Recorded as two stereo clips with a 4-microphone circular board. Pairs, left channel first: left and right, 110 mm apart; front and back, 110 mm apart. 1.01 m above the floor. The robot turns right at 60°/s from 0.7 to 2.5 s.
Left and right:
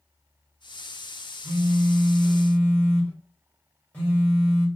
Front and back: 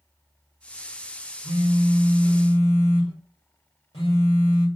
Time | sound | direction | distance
1.4 | a phone buzzing | 50° right | 1.3 m